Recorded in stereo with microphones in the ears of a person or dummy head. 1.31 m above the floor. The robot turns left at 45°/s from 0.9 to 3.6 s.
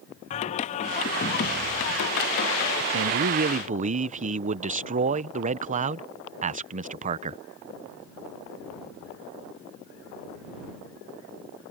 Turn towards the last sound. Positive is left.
turn(degrees=-130)